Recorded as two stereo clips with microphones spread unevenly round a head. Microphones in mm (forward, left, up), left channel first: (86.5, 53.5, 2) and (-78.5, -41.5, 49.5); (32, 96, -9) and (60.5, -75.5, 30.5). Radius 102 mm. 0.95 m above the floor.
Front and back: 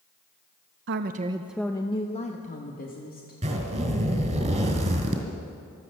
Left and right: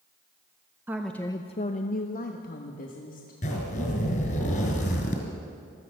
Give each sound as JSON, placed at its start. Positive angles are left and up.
{"t": 0.9, "sound": "a woman speaking", "azimuth_deg": -170, "distance_m": 0.6}
{"t": 3.4, "sound": "a zipper", "azimuth_deg": 160, "distance_m": 2.0}